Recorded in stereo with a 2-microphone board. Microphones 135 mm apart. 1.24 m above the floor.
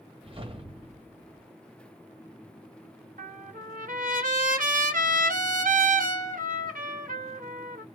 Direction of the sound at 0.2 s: 40° right (ahead or behind).